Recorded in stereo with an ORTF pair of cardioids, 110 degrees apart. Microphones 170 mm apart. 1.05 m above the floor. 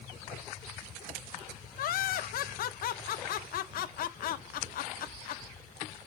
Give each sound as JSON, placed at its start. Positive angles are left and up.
{"t": 1.8, "sound": "laughter", "azimuth_deg": 60, "distance_m": 0.5}